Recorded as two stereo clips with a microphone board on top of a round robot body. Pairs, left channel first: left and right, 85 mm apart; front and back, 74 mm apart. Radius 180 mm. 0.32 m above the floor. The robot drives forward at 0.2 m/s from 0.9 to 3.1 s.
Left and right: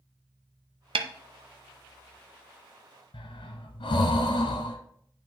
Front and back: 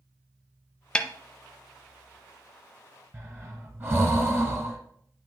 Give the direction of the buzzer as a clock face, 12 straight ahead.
No buzzer in this recording.